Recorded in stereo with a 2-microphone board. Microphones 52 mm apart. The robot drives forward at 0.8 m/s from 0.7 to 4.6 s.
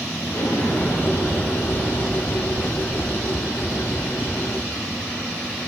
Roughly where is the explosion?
Left.